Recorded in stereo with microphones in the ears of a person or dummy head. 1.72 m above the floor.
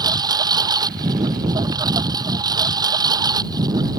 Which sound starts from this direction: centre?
A lawn mower, at 0.0 s.